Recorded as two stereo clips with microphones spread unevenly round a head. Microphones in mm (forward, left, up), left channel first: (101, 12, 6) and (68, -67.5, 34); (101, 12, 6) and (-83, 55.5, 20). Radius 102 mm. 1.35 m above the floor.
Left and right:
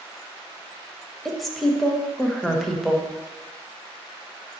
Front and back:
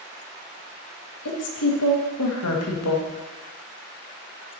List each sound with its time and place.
1.2 s a woman speaking: 20° right, 1.5 m